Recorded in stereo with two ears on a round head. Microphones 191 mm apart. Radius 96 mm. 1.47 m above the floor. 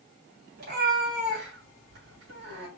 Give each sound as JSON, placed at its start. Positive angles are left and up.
{"t": 0.6, "sound": "a cat meowing", "side_deg": -50, "distance_m": 3.5}